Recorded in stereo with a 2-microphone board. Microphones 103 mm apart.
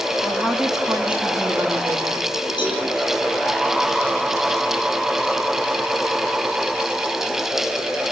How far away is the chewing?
I don't hear chewing.